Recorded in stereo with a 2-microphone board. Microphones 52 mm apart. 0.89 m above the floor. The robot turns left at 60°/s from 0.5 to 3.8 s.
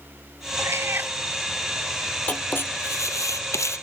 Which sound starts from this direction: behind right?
A cat meowing, at 0.6 s.